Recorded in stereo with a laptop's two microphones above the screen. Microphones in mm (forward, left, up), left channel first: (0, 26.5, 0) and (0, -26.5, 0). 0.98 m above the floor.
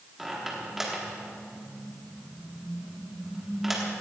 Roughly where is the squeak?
Centre.